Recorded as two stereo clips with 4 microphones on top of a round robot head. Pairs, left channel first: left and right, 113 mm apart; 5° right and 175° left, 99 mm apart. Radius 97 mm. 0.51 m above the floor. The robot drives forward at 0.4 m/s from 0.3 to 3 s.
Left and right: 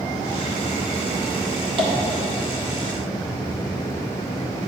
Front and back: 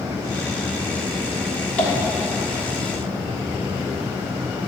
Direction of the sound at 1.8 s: 75° right.